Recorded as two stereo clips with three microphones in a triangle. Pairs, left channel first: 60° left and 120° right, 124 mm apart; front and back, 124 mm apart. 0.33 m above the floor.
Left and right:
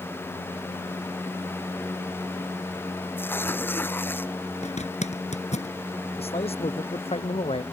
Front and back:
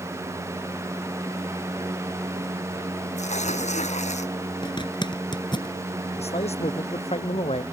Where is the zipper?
50° left.